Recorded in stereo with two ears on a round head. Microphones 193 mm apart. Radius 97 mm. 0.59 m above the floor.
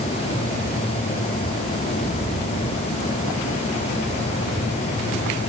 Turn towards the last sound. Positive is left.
No sound to turn to.